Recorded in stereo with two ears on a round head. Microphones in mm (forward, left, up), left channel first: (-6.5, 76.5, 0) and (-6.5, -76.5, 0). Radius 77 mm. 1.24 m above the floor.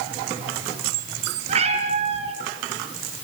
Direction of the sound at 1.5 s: 40° right (ahead or behind).